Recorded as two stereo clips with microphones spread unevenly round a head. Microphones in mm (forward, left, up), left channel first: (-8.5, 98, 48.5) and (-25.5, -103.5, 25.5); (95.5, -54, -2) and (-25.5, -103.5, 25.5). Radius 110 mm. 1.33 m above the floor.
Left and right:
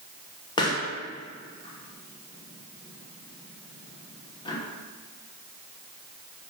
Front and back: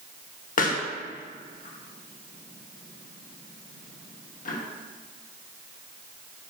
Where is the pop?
15° left, 1.1 m.